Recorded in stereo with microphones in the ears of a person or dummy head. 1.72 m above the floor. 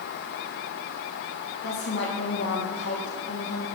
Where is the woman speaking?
80° left, 1.9 m.